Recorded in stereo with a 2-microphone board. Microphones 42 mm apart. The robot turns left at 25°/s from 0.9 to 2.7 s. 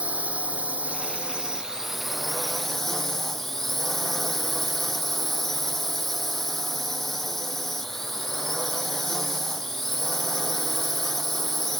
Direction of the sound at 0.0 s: 145° right.